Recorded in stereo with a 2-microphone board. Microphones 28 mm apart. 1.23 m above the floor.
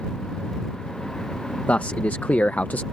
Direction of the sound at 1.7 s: 70° left (ahead or behind).